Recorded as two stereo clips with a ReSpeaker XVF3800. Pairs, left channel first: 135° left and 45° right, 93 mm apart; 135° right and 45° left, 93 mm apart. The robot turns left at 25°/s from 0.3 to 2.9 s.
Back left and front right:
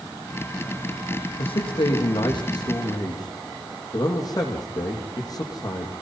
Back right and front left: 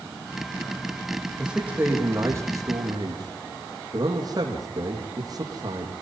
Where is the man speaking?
125° left, 6 m; by 5.9 s 90° left, 6 m.